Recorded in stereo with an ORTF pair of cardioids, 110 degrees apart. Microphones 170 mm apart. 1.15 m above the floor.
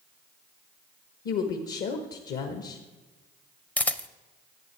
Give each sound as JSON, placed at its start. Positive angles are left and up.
{"t": 1.2, "sound": "a woman speaking", "azimuth_deg": 70, "distance_m": 1.3}
{"t": 3.8, "sound": "a camera shutter", "azimuth_deg": 10, "distance_m": 0.5}